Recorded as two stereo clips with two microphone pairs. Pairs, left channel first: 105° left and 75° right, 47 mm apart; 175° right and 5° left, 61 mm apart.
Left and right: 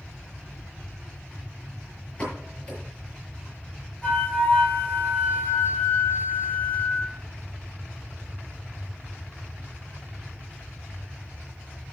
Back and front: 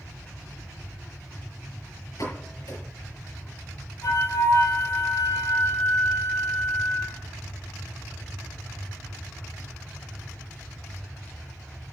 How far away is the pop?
About 6.5 m.